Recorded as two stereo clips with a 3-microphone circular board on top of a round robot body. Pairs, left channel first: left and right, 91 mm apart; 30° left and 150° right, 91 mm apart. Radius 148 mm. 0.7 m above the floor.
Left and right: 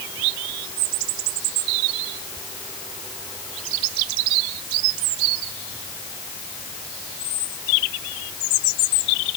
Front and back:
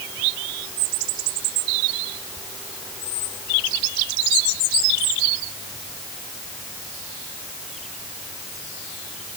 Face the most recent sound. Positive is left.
No sound to turn to.